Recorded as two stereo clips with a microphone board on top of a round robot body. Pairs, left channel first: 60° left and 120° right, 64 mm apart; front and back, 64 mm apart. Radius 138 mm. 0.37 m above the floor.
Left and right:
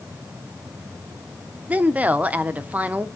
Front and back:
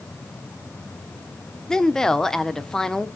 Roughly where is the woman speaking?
Right.